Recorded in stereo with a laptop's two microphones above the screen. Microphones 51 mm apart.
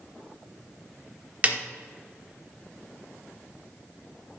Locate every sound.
1.4 s a snare drum: 30° right (ahead or behind), 1.0 m